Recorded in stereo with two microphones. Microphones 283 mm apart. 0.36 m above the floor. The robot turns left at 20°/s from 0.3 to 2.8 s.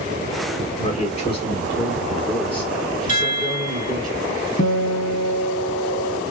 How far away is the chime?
About 1.1 m.